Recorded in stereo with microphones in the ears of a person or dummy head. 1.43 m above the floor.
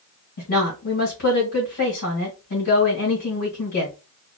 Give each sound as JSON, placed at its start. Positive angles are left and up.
{"t": 0.4, "sound": "a woman speaking", "side_deg": 75, "distance_m": 1.6}